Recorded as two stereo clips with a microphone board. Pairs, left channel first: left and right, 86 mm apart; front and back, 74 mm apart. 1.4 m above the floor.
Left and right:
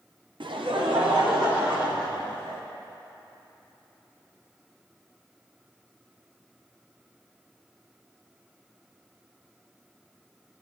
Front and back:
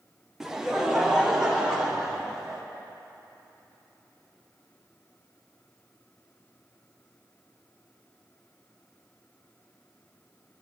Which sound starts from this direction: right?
Laughter, at 0.4 s.